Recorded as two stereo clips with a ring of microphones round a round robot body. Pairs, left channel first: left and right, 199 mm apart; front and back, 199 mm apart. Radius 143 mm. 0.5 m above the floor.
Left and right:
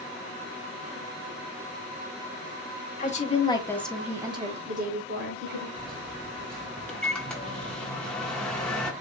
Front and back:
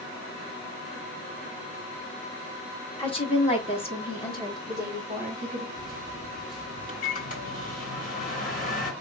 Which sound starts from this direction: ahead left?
A woman speaking, at 3.0 s.